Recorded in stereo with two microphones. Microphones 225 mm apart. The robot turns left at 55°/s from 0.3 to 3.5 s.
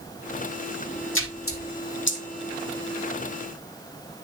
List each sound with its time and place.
1.1 s a splash: 65° left (ahead or behind), 1.4 m; by 2.2 s 50° left (ahead or behind), 1.4 m